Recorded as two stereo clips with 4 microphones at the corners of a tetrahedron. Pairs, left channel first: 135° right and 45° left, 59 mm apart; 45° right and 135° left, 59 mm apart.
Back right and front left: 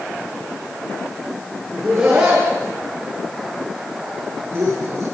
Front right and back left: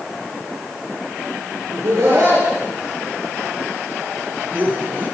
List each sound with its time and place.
1.7 s laughter: 125° left, 5 m; by 5.0 s 80° left, 4 m